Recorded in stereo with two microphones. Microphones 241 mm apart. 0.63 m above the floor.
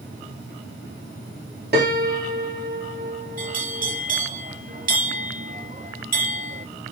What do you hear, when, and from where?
1.7 s a piano: 45° right (ahead or behind), 1.4 m
3.4 s a bell: 35° right (ahead or behind), 0.8 m